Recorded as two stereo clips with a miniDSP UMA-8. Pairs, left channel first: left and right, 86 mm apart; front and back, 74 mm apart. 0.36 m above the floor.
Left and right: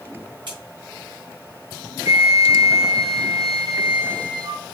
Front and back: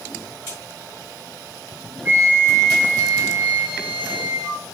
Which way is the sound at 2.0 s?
115° right.